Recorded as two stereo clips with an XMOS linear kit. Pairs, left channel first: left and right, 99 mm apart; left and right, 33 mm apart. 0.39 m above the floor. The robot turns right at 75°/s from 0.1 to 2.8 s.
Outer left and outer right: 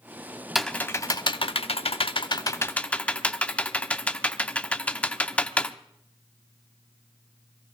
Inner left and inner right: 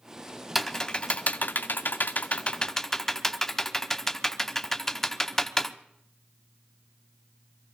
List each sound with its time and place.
0.6 s typing on a keyboard: centre (ahead or behind), 0.6 m; by 5.8 s 15° left (ahead or behind), 0.6 m